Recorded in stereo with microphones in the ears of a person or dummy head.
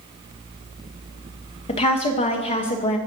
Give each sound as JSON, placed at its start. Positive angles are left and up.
{"t": 1.7, "sound": "a woman speaking", "side_deg": 30, "distance_m": 0.8}